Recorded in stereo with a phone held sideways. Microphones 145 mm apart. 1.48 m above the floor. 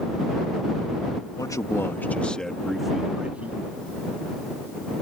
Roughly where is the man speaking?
Left.